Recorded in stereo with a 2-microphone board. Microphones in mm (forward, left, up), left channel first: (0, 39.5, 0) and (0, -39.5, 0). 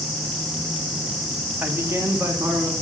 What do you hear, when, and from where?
1.6 s a man speaking: 25° right (ahead or behind), 1.1 m; by 2.7 s 40° right (ahead or behind), 2.5 m